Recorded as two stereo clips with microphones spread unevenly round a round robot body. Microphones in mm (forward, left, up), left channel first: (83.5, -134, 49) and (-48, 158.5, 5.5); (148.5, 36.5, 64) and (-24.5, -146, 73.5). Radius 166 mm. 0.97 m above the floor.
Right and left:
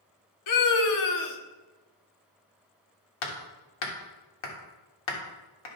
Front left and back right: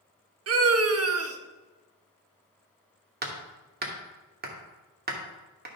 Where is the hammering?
80° right, 1.8 m.